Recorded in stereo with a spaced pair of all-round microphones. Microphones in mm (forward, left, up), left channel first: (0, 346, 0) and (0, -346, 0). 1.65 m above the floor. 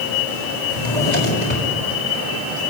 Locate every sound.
0.7 s a drawer: 80° left, 6.5 m